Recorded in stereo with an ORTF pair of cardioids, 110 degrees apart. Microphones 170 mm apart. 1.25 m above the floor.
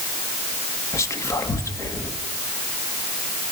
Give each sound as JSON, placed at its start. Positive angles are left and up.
{"t": 0.9, "sound": "whispering", "azimuth_deg": 20, "distance_m": 2.5}